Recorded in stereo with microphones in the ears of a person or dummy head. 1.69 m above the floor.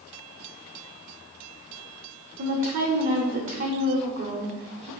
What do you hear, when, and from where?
2.4 s a woman speaking: 45° right (ahead or behind), 0.6 m